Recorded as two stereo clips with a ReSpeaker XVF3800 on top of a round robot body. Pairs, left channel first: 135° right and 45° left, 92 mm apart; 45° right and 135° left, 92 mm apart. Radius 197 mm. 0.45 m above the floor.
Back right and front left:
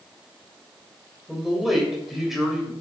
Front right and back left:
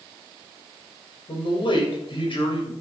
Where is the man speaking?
40° right, 3 m.